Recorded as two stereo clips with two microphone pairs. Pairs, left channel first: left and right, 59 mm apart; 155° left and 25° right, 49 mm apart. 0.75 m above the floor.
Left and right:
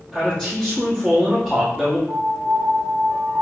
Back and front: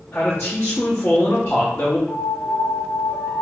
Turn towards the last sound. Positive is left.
turn(degrees=-130)